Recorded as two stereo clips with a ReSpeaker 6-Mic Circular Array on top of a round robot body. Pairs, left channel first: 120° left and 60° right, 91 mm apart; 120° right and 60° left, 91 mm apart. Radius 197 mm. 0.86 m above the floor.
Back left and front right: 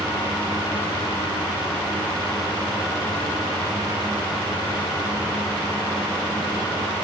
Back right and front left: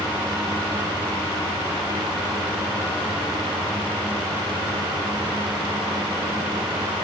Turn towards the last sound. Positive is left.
No sound to turn to.